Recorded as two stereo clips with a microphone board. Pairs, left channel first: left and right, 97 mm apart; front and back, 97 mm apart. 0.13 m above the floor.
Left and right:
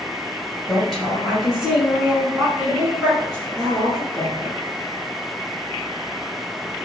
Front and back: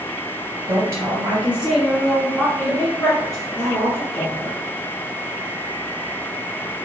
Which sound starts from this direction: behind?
A woman speaking, at 0.7 s.